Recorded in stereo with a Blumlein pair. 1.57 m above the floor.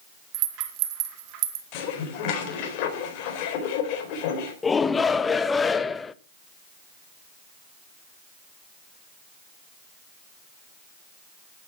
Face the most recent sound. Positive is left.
turn(degrees=15)